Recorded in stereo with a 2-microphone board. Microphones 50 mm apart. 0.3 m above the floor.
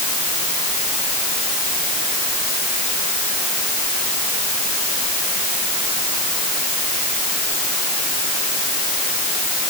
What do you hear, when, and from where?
Only background noise.